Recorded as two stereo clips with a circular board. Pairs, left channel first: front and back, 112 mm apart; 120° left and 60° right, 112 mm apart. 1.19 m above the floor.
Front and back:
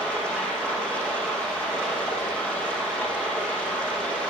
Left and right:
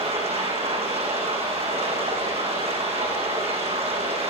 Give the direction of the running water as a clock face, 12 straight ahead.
3 o'clock.